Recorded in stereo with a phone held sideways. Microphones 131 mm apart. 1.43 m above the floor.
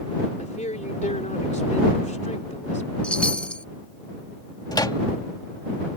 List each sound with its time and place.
0.4 s a woman speaking: 65° left (ahead or behind)
3.0 s a chime: 10° left (ahead or behind)
4.7 s a microwave: 30° left (ahead or behind)